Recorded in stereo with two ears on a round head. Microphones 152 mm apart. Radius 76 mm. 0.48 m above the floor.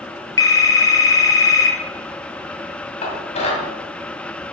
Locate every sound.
0.4 s a phone ringing: 20° left (ahead or behind), 1.5 m
3.0 s dishes clattering: 40° left (ahead or behind), 2 m